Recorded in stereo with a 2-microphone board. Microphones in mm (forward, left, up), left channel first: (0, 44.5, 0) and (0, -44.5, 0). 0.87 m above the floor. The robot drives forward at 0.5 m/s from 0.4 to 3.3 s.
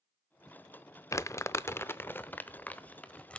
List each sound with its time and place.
1.1 s crumpling: 35° left (ahead or behind), 0.5 m; by 3.4 s 15° left (ahead or behind), 1.2 m